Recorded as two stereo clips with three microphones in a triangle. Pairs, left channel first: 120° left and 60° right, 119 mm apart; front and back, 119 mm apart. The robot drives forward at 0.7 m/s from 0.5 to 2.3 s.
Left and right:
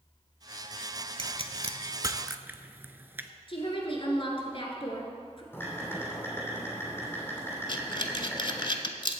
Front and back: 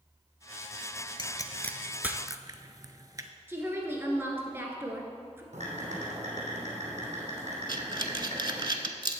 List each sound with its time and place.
1.2 s a pop: 40° right, 0.7 m; by 3.3 s 130° right, 0.6 m
3.5 s a woman speaking: 115° left, 1.6 m
5.5 s typing on a keyboard: 170° right, 3 m
7.7 s breathing: 145° left, 0.6 m